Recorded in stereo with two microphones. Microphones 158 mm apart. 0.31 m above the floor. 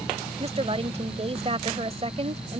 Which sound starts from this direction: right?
A woman speaking, at 0.4 s.